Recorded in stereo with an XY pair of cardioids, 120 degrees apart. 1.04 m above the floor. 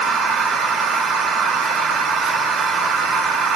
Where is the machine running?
65° right, 2 m.